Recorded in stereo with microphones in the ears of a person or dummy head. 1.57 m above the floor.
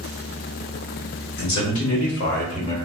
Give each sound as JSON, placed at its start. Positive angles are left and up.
{"t": 1.4, "sound": "a man speaking", "side_deg": 60, "distance_m": 1.4}